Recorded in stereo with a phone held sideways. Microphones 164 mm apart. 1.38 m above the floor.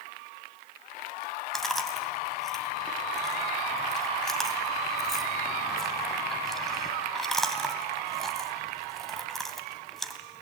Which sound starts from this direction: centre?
Chewing, at 1.5 s.